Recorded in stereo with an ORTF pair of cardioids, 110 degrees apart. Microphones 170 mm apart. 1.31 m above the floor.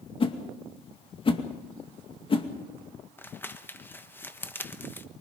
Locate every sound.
0.2 s a whoosh: 30° left, 2.5 m
3.2 s crumpling: 10° left, 1.2 m